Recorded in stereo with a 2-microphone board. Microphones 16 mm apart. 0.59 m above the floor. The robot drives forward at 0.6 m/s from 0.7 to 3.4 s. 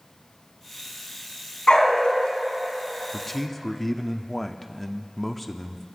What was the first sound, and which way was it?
A dog barking, 70° left (ahead or behind).